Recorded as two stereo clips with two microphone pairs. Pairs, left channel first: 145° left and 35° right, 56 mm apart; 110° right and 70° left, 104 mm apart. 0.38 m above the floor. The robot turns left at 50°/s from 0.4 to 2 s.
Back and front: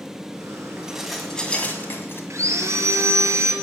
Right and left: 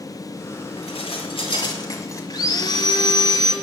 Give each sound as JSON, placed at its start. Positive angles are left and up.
{"t": 0.8, "sound": "dishes clattering", "azimuth_deg": -105, "distance_m": 1.7}
{"t": 2.3, "sound": "sawing", "azimuth_deg": -65, "distance_m": 2.0}